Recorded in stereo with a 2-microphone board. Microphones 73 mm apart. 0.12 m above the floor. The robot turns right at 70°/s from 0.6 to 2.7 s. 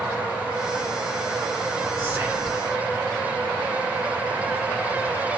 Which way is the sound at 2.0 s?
40° right.